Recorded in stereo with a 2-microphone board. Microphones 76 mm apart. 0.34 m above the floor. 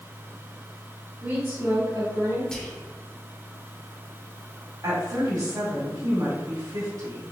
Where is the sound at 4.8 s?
55° right (ahead or behind), 1.9 m.